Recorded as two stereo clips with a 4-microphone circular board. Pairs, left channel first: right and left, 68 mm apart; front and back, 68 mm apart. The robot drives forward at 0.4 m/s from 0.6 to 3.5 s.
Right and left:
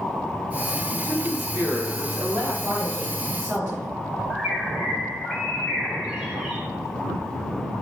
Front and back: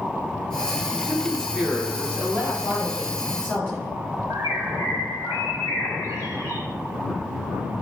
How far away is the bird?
About 1.3 m.